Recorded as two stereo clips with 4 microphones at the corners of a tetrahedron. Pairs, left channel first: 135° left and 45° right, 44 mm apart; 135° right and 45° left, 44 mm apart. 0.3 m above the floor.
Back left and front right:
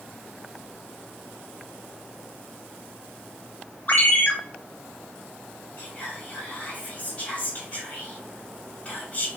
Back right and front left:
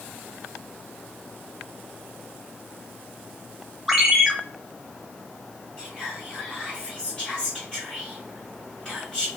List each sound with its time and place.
3.9 s a ringtone: 125° left, 0.7 m
5.8 s whispering: 165° left, 1.7 m